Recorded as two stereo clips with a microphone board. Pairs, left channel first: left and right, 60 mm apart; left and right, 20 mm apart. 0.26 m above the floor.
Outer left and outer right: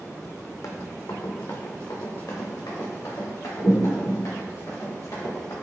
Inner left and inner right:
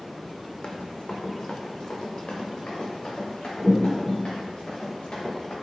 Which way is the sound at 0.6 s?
60° left (ahead or behind).